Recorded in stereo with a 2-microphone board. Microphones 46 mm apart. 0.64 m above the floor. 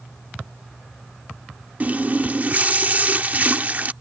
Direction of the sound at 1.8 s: 35° right (ahead or behind).